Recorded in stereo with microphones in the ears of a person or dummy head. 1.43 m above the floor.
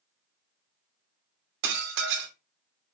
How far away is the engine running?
I don't hear an engine running.